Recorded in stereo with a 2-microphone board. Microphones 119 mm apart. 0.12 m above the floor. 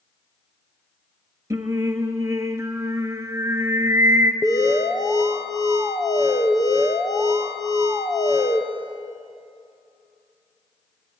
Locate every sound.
1.5 s singing: 25° right (ahead or behind), 1.5 m
4.4 s an alarm: 30° left (ahead or behind), 1.9 m